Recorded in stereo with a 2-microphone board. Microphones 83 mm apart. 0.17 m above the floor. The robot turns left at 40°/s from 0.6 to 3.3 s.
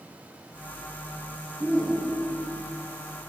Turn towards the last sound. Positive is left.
turn(degrees=130)